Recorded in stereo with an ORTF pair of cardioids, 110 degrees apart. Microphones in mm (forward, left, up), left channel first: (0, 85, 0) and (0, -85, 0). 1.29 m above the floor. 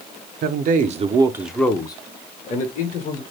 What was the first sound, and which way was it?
A man speaking, 65° right.